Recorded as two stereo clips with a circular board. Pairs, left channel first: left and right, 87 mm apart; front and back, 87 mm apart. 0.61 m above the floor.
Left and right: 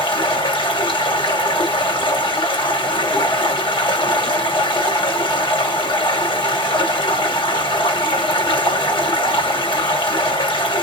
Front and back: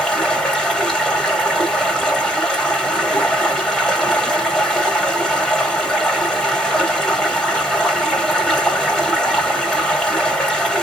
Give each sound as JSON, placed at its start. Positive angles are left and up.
{"t": 0.0, "sound": "running water", "azimuth_deg": 80, "distance_m": 1.5}